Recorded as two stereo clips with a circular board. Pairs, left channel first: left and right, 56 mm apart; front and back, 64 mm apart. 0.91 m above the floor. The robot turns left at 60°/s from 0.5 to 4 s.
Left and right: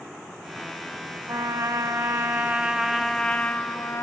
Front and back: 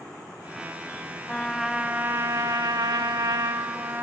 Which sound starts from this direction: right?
A trumpet, at 1.3 s.